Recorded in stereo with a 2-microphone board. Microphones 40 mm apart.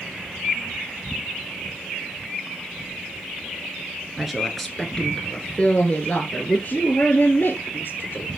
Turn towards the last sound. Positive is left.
turn(degrees=55)  # may be behind; listen again after turning